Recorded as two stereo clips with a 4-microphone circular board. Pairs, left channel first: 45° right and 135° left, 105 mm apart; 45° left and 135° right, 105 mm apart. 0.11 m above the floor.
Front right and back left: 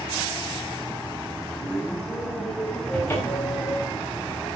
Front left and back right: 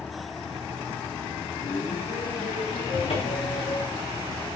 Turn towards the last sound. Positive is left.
turn(degrees=25)